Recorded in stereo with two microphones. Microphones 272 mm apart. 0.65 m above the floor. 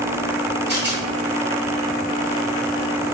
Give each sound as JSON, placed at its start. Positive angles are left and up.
{"t": 0.7, "sound": "a rattle", "side_deg": -40, "distance_m": 1.3}